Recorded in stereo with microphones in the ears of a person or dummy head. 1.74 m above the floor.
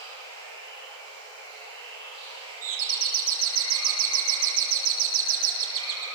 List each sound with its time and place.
0.0 s running water: 20° left (ahead or behind), 10 m
2.6 s a doorbell: 50° right (ahead or behind), 4 m